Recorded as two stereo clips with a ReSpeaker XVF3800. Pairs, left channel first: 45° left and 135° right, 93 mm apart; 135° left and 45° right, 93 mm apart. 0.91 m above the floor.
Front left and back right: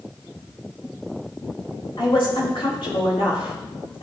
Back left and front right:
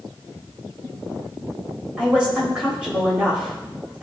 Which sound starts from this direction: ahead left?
A woman speaking, at 2.0 s.